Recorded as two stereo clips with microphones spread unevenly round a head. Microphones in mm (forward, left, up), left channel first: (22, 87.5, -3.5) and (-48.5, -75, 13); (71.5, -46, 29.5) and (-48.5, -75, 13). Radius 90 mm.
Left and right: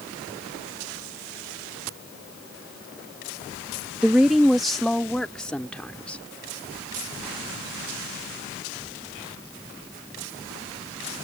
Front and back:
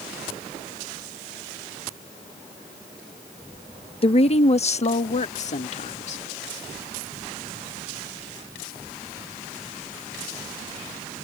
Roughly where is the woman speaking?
Ahead right.